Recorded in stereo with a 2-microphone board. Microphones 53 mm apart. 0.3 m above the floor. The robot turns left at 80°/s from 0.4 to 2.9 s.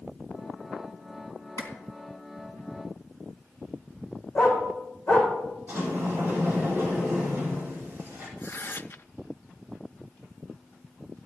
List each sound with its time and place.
1.6 s a clap: 60° left (ahead or behind), 3 m; by 1.7 s 65° left (ahead or behind), 3 m
4.3 s a dog barking: 25° left (ahead or behind), 4.5 m
5.7 s a sliding door: 40° right (ahead or behind), 7.5 m
8.4 s tearing paper: 50° left (ahead or behind), 0.6 m